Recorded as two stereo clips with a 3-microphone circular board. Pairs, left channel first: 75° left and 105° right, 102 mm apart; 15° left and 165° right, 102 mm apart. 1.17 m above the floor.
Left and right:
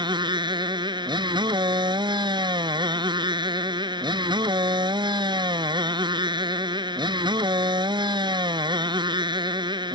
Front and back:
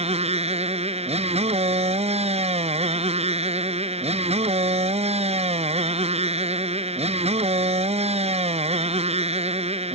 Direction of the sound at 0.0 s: 150° right.